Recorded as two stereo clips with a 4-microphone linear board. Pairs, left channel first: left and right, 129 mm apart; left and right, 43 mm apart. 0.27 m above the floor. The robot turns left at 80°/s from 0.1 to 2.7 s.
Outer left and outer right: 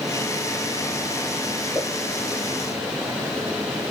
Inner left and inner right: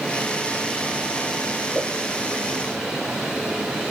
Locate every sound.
1.8 s a pop: centre (ahead or behind), 0.9 m; by 1.9 s 10° left (ahead or behind), 0.9 m